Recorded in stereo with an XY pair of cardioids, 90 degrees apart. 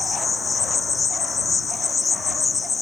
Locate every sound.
0.0 s an insect: 35° left